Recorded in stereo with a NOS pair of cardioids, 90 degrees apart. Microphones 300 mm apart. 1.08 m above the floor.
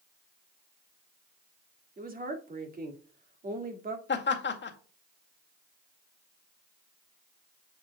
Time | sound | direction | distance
2.0 | a woman speaking | 30° right | 2 m
4.1 | laughter | 40° left | 2.0 m